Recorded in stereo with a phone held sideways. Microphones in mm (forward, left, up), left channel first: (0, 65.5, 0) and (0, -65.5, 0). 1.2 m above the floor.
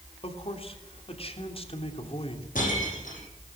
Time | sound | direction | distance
0.2 | a man speaking | 45° left (ahead or behind) | 3 m
2.5 | breaking glass | 80° left | 9 m